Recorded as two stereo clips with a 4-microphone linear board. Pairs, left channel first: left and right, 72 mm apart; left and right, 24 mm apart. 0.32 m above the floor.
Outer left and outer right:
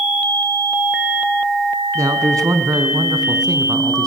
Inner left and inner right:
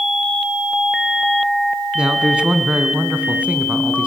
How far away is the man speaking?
About 3 m.